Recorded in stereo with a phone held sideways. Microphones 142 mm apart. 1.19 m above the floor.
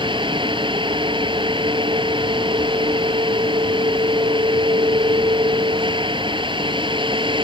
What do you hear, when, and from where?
0.0 s a fan: 35° right (ahead or behind)